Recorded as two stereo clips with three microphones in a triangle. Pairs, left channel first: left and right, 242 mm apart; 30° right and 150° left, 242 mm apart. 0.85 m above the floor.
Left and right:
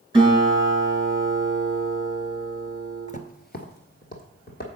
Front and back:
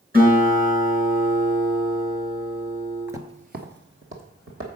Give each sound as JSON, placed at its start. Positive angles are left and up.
{"t": 0.1, "sound": "a guitar", "azimuth_deg": -160, "distance_m": 3.5}
{"t": 3.1, "sound": "footsteps", "azimuth_deg": 75, "distance_m": 0.9}